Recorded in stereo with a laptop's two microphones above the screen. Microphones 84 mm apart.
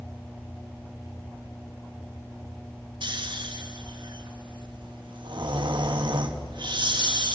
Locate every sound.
3.0 s snoring: 65° right (ahead or behind), 1.6 m